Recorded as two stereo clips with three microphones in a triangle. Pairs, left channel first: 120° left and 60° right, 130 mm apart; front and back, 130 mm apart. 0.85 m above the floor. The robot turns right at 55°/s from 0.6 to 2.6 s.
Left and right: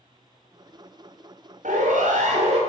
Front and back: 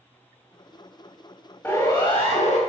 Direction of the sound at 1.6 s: 75° right.